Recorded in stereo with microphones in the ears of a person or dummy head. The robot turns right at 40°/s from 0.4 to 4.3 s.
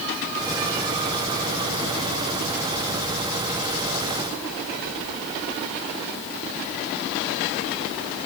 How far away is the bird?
I don't hear a bird.